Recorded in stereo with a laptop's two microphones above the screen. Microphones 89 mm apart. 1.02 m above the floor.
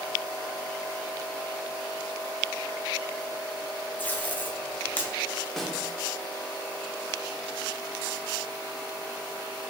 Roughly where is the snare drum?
Centre.